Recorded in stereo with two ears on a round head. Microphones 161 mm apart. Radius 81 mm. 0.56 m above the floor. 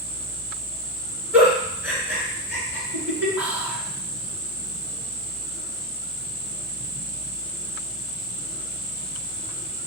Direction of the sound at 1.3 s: 10° right (ahead or behind).